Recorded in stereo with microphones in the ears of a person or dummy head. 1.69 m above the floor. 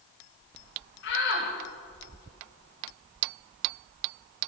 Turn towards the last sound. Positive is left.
turn(degrees=65)  # may be behind; listen again after turning